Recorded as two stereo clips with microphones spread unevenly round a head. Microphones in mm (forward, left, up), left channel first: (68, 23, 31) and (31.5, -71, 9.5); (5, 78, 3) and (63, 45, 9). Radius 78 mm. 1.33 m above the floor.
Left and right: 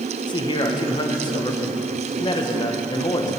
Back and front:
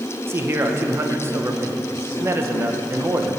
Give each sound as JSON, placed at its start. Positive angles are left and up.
{"t": 0.3, "sound": "a man speaking", "azimuth_deg": 20, "distance_m": 1.4}